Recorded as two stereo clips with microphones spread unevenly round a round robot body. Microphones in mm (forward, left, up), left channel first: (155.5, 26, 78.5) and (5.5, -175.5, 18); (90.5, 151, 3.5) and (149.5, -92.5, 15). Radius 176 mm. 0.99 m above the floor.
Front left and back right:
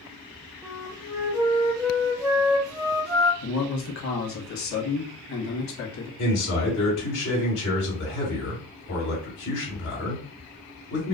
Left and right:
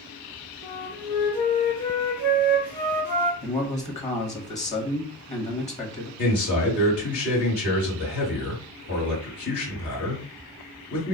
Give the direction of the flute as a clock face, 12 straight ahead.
7 o'clock.